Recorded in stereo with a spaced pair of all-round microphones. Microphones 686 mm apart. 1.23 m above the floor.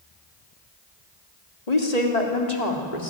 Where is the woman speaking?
65° left (ahead or behind), 3.5 m; by 3.1 s 75° left (ahead or behind), 4 m.